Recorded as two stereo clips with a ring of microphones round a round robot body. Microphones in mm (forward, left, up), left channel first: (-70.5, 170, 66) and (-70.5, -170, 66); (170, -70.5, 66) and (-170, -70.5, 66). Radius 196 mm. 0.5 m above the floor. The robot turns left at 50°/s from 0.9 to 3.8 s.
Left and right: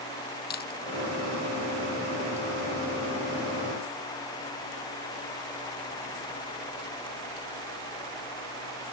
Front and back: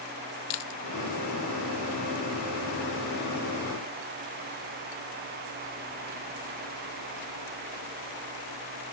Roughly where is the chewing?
Ahead left.